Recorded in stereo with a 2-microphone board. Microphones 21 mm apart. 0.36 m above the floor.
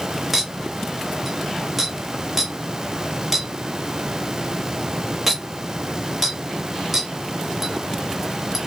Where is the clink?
10° right (ahead or behind), 1.0 m.